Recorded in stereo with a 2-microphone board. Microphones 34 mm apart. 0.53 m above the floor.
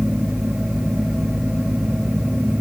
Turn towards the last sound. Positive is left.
No sound to turn to.